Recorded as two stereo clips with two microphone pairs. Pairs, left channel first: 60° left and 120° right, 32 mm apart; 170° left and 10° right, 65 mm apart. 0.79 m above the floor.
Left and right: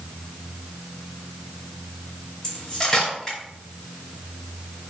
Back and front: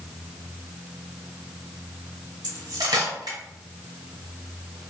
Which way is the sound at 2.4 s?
10° right.